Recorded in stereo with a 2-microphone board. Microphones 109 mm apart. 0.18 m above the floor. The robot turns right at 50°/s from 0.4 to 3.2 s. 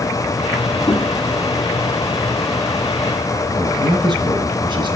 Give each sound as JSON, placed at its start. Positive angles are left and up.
{"t": 0.9, "sound": "knocking", "side_deg": 45, "distance_m": 5.5}
{"t": 3.5, "sound": "a man speaking", "side_deg": -45, "distance_m": 2.0}